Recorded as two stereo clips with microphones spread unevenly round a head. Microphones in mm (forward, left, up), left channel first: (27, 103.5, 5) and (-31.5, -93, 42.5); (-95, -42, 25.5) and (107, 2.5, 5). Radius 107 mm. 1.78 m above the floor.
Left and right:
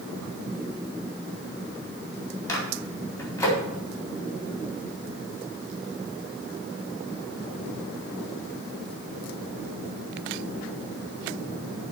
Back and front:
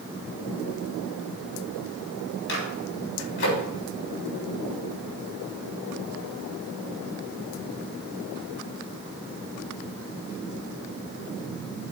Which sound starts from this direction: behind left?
A microwave, at 2.5 s.